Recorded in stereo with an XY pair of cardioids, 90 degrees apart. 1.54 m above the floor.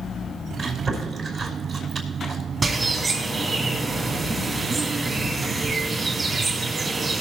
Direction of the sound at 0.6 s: 60° right.